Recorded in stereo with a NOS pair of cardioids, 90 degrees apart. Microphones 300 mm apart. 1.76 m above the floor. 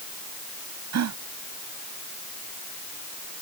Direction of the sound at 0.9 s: 60° right.